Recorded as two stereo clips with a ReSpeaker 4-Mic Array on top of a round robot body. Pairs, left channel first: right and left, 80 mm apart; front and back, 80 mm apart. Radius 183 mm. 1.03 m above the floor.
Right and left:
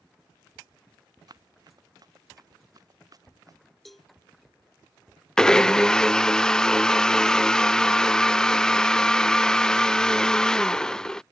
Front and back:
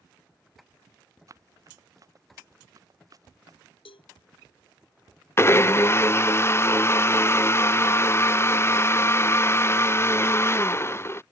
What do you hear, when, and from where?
1.3 s running footsteps: 130° left; by 3.6 s 135° left
3.9 s a cowbell: straight ahead
5.4 s a blender: 15° right